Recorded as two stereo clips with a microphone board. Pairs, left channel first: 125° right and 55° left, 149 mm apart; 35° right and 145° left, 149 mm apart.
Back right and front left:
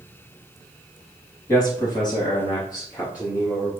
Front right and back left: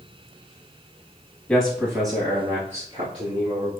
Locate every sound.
1.5 s a man speaking: 100° right, 1.0 m; by 3.7 s 175° left, 3 m